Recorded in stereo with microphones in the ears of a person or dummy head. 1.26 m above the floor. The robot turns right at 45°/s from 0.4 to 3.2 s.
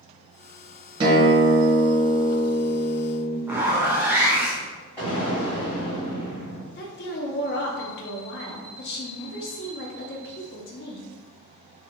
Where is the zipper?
15° right (ahead or behind), 0.6 m.